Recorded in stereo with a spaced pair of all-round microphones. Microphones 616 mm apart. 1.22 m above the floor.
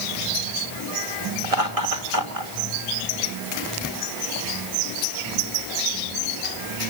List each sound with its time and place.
1.4 s laughter: 60° right (ahead or behind), 3.5 m